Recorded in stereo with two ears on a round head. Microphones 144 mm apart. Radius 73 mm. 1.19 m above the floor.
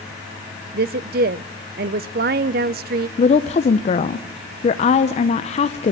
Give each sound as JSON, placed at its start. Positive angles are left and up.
{"t": 0.7, "sound": "a woman speaking", "side_deg": -65, "distance_m": 0.5}
{"t": 3.2, "sound": "a woman speaking", "side_deg": 40, "distance_m": 0.6}